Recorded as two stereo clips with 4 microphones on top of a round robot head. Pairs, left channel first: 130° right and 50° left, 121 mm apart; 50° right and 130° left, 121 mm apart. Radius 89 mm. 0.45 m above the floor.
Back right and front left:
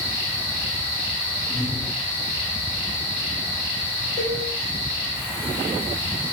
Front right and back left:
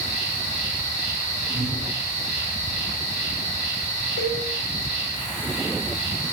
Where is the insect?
70° right, 3 m.